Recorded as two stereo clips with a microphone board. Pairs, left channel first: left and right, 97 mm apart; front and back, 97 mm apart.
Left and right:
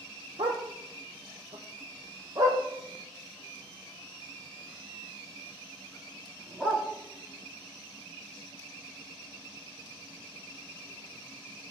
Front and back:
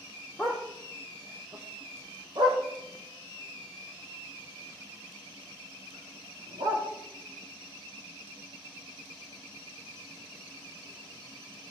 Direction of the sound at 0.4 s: 85° right.